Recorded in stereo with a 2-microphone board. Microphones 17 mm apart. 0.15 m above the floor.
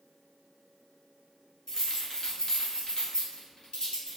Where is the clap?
I don't hear a clap.